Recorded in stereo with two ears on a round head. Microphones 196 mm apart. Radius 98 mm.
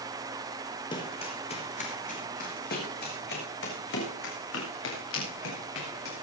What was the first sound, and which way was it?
Running footsteps, 20° left (ahead or behind).